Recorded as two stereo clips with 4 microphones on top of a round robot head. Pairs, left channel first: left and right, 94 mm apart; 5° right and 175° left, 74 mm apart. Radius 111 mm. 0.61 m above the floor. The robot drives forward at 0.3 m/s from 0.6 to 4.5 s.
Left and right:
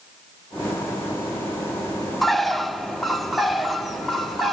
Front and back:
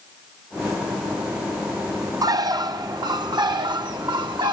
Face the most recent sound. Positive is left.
turn(degrees=180)